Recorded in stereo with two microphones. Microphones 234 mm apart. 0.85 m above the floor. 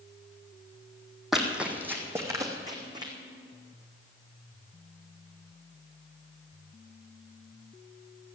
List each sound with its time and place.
1.3 s running footsteps: centre (ahead or behind), 2.0 m; by 3.1 s 20° right (ahead or behind), 3 m